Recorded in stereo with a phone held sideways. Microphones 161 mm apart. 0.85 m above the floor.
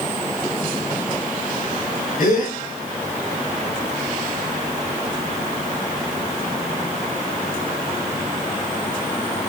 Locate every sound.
2.2 s a gasp: 75° left (ahead or behind), 3.5 m